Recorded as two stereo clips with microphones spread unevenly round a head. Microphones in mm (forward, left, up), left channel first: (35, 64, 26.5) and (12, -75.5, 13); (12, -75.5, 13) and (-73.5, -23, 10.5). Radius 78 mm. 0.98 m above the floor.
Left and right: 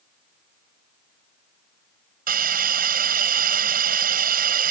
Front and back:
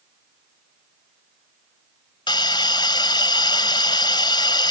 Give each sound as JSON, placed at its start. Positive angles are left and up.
{"t": 2.3, "sound": "a hiss", "azimuth_deg": -75}